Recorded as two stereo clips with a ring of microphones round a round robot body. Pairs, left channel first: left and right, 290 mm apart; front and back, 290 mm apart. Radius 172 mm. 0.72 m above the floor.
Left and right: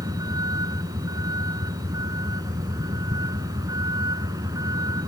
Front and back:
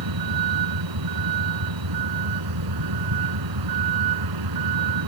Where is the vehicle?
170° right.